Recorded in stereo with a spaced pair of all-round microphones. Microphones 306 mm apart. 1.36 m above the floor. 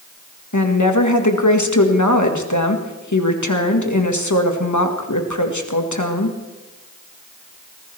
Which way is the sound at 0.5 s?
70° left (ahead or behind).